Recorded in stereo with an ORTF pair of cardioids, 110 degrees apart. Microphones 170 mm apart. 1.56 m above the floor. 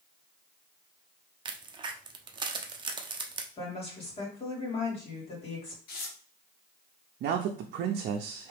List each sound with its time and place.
1.4 s a crack: 25° right, 0.7 m
3.6 s a woman speaking: 35° left, 2.5 m
5.9 s tearing paper: 60° left, 1.1 m
7.2 s a man speaking: 70° right, 0.6 m